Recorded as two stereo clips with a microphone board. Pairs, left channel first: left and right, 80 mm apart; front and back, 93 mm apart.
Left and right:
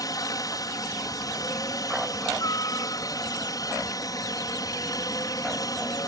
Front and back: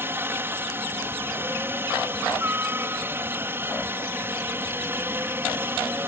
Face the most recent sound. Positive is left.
turn(degrees=120)